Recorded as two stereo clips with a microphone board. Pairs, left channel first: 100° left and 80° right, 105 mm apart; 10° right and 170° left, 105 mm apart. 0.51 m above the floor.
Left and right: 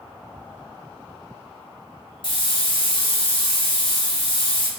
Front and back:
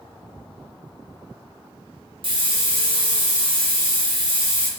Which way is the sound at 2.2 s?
135° left.